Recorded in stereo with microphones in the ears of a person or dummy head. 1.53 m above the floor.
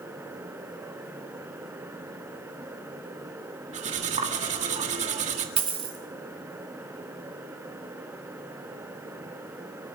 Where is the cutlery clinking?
40° right (ahead or behind), 1.7 m.